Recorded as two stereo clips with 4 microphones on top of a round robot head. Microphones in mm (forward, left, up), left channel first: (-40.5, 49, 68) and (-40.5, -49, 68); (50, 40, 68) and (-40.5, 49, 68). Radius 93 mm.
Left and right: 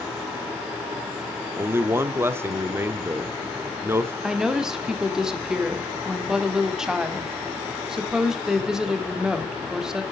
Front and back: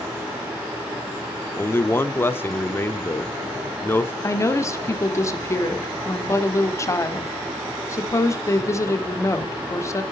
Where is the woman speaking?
10° right, 1.5 m.